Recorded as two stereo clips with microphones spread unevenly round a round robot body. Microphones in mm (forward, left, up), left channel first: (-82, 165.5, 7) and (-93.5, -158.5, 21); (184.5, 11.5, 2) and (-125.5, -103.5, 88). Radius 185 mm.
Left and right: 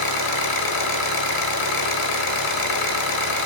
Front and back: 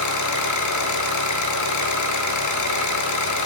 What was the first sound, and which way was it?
An engine running, 70° left.